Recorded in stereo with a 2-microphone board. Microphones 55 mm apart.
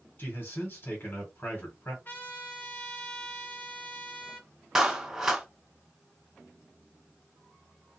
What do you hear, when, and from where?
0.2 s a man speaking: 40° left (ahead or behind), 2 m
2.0 s a trumpet: 40° left (ahead or behind), 1.0 m
4.8 s a clap: 10° right (ahead or behind), 0.9 m